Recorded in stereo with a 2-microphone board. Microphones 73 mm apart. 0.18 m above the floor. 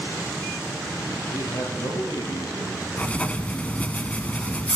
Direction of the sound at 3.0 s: 20° left (ahead or behind).